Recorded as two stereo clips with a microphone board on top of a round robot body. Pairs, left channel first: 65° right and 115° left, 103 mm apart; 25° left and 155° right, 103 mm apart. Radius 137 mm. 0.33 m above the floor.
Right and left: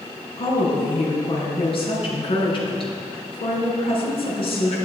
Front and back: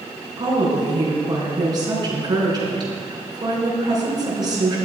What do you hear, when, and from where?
0.4 s a woman speaking: 105° right, 4.5 m